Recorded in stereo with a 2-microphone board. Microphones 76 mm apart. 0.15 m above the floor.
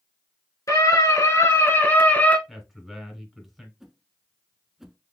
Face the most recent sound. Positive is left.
turn(degrees=-5)  # may be behind; listen again after turning